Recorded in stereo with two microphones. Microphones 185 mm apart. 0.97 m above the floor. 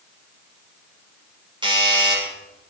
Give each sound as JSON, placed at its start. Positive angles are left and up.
{"t": 1.6, "sound": "a doorbell", "side_deg": -25, "distance_m": 5.0}